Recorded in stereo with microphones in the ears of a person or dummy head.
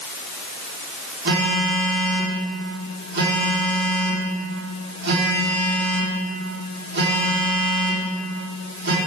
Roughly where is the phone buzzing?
Right.